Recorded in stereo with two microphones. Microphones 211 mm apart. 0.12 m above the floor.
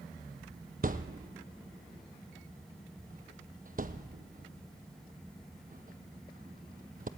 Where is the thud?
45° right (ahead or behind), 0.8 m.